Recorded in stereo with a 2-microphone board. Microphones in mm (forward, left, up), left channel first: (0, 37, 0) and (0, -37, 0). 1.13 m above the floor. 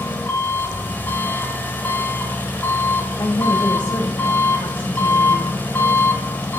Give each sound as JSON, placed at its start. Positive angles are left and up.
{"t": 0.0, "sound": "an engine running", "side_deg": 25, "distance_m": 1.8}
{"t": 3.2, "sound": "a woman speaking", "side_deg": 80, "distance_m": 4.5}